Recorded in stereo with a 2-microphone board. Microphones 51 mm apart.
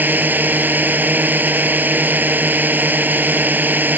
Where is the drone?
35° right (ahead or behind).